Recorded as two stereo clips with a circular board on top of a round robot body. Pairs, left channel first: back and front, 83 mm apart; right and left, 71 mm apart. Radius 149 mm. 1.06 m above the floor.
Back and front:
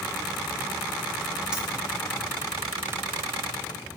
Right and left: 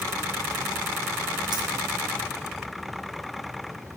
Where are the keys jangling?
80° left, 1.1 m.